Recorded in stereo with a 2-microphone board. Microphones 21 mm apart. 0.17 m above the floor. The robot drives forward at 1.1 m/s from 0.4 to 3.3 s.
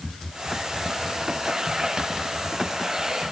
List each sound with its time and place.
Only background noise.